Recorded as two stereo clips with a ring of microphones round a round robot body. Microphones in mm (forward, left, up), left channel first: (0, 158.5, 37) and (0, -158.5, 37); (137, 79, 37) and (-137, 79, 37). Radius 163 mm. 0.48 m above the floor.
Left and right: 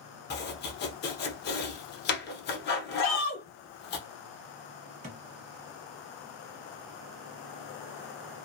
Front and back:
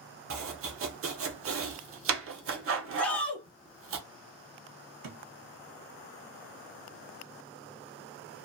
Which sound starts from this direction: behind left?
Chopping, at 0.3 s.